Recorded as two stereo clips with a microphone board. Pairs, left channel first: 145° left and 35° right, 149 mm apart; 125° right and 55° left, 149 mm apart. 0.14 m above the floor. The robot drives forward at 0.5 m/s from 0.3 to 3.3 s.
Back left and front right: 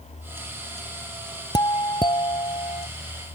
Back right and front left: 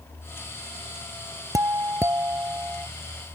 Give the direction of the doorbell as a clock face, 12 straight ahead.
8 o'clock.